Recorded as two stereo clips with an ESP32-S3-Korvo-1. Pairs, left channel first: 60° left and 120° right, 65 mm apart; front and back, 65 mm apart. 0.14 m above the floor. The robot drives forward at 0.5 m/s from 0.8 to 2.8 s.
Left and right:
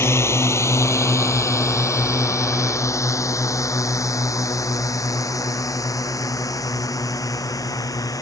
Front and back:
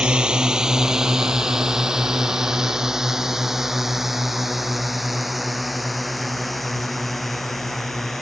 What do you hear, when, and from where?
0.0 s a drone: 105° left; by 8.2 s 85° left